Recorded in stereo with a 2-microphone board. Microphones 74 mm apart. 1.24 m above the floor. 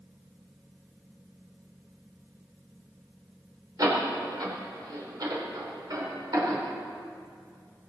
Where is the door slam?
55° right (ahead or behind), 3.5 m.